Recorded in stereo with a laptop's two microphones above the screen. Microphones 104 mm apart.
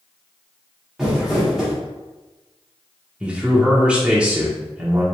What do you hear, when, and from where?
1.0 s crumpling: centre (ahead or behind), 1.4 m
3.2 s a man speaking: 10° right (ahead or behind), 0.8 m